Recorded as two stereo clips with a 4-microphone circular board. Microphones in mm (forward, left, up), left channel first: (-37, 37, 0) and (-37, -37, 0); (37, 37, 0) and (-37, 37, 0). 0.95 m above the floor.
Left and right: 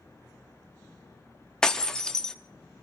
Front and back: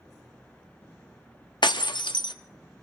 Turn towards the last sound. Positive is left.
turn(degrees=10)